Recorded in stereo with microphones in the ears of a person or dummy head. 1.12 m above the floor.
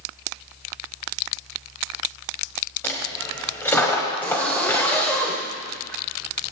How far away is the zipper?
About 1.7 m.